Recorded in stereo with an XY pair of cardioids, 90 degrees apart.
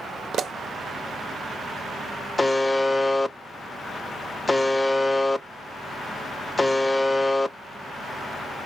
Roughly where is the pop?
Right.